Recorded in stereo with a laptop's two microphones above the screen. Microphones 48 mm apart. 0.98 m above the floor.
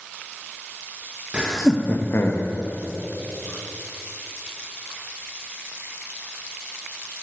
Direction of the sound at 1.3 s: 25° right (ahead or behind).